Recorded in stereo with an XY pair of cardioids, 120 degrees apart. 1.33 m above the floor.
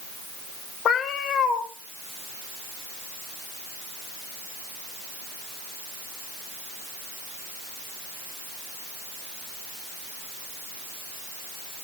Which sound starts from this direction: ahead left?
A cat meowing, at 0.8 s.